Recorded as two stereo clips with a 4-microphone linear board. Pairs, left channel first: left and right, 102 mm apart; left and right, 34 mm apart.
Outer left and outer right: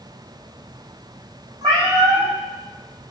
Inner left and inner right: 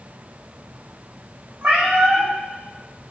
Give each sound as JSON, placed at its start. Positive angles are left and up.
{"t": 1.6, "sound": "a cat meowing", "side_deg": -35, "distance_m": 5.0}